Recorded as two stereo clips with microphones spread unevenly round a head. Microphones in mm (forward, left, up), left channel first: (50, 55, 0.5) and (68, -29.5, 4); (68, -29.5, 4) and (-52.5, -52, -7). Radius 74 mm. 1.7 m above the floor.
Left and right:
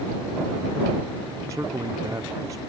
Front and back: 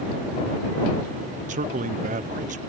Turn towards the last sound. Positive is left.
turn(degrees=-150)